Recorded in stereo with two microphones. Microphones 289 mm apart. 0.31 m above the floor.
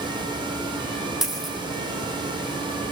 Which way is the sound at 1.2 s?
Centre (ahead or behind).